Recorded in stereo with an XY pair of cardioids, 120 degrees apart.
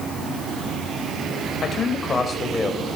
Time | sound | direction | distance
1.6 | a man speaking | 35° left | 7.5 m